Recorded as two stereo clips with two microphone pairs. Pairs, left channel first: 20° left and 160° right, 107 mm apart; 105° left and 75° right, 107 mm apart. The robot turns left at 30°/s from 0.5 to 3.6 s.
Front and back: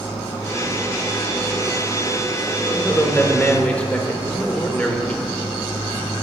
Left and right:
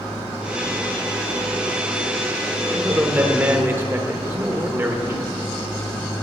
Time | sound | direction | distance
2.7 | a man speaking | 20° right | 0.8 m